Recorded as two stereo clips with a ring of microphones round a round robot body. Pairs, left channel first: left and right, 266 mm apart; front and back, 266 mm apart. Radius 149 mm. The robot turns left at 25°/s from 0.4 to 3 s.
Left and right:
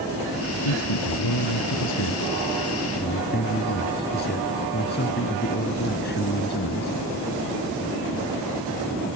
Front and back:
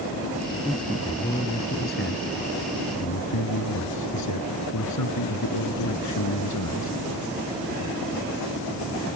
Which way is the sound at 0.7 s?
90° left.